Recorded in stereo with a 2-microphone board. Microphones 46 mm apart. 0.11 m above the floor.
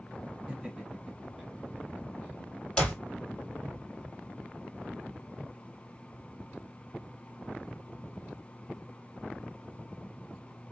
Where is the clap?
20° left (ahead or behind), 2.5 m.